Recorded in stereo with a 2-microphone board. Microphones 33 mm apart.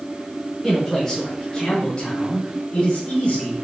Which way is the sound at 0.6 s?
5° left (ahead or behind).